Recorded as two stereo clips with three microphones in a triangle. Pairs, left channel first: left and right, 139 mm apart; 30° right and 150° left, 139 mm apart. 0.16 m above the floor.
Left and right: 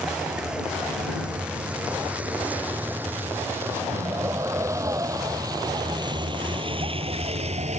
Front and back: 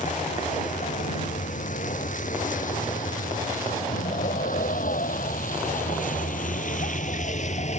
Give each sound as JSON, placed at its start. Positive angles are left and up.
{"t": 0.0, "sound": "a vehicle", "azimuth_deg": -5}